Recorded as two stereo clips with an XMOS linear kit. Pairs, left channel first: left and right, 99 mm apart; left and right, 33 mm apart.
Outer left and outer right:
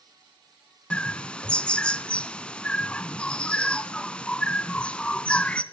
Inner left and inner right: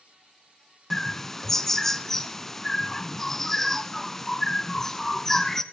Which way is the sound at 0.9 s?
10° left (ahead or behind).